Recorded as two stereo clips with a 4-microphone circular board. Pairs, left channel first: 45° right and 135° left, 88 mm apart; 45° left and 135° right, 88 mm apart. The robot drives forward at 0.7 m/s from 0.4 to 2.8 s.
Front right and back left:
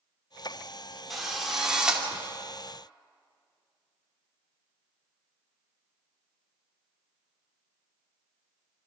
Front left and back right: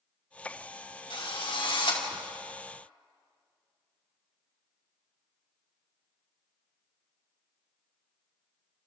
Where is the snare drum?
No snare drum in this recording.